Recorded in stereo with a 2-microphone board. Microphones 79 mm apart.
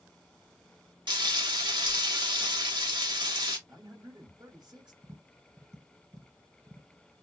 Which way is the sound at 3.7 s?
65° right (ahead or behind).